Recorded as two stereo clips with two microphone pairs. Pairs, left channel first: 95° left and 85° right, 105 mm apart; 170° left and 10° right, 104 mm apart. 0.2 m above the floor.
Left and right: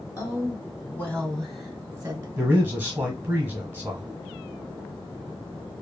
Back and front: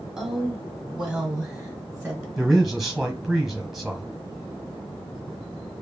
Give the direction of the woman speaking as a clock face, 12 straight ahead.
10 o'clock.